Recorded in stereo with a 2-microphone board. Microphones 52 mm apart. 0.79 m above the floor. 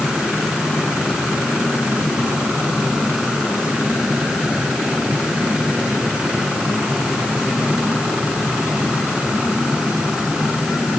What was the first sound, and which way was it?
Only background noise.